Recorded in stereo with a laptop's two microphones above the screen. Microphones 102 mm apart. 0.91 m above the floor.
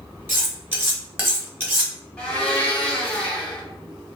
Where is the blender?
10° left (ahead or behind), 0.7 m.